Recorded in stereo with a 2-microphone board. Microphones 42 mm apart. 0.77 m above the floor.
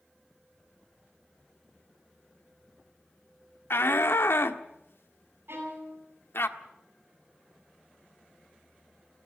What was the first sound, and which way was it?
A shout, 75° left (ahead or behind).